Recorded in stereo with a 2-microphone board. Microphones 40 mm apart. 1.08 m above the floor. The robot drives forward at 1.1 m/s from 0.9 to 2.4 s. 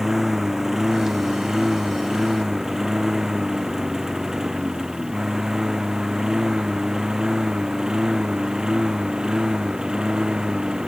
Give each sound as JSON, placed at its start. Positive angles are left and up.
{"t": 0.0, "sound": "a lawn mower", "side_deg": -10}